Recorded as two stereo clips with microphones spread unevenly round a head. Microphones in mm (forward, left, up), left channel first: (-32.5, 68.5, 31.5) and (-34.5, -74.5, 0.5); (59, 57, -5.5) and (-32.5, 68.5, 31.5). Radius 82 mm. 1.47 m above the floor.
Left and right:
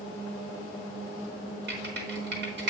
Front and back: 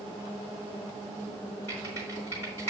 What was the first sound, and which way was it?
Typing on a keyboard, 90° right.